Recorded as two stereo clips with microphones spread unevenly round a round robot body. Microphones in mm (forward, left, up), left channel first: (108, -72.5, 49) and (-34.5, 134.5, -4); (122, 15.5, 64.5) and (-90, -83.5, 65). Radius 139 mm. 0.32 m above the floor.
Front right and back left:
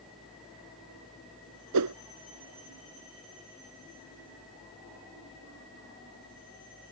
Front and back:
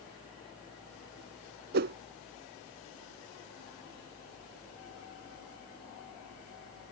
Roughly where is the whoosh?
Behind left.